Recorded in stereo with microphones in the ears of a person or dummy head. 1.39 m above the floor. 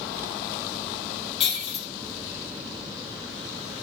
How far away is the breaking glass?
About 3.5 m.